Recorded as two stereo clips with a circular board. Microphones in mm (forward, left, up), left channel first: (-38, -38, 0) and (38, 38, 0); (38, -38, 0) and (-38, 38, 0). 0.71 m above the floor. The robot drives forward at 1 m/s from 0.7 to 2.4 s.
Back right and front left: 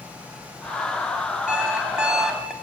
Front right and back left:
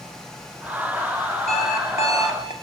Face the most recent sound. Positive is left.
turn(degrees=-40)